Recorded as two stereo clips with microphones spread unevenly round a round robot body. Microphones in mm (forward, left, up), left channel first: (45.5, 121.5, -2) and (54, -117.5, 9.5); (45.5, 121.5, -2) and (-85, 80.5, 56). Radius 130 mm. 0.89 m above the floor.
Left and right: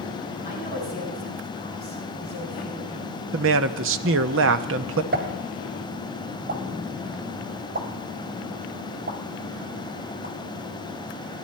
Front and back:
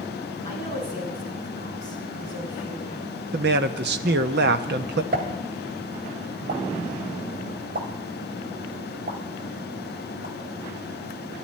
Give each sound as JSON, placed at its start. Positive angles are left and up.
{"t": 0.5, "sound": "a woman speaking", "azimuth_deg": -145, "distance_m": 7.0}
{"t": 3.3, "sound": "a man speaking", "azimuth_deg": -135, "distance_m": 0.8}
{"t": 5.1, "sound": "a pop", "azimuth_deg": -145, "distance_m": 2.0}